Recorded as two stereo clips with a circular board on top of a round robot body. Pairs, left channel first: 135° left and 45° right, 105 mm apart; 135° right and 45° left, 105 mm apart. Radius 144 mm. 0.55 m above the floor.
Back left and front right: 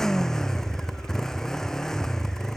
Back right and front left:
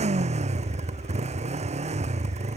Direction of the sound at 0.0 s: 50° left.